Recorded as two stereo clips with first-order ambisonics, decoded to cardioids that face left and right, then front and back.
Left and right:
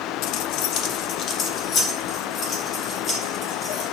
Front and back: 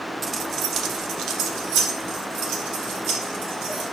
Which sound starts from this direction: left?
Keys jangling, at 0.2 s.